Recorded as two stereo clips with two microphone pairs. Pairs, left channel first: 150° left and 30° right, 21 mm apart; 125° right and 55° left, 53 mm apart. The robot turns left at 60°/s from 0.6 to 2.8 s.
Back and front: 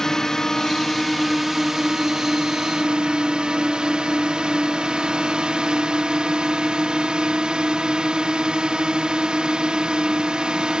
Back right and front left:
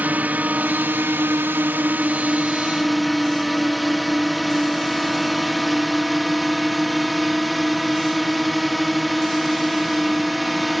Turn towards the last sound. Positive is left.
turn(degrees=-35)